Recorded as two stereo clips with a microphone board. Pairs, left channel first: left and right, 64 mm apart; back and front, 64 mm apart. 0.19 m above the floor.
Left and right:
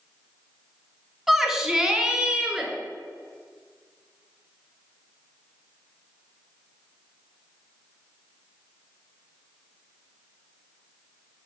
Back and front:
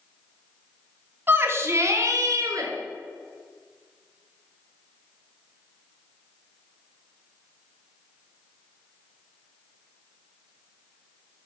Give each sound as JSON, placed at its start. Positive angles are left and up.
{"t": 1.3, "sound": "a shout", "azimuth_deg": -5, "distance_m": 1.4}